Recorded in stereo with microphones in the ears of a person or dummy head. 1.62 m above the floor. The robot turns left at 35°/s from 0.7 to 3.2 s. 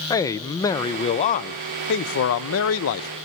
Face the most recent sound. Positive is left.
turn(degrees=75)